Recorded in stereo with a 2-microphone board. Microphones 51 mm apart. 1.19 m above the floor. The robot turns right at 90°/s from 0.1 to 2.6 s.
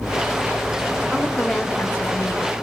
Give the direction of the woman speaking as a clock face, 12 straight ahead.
1 o'clock.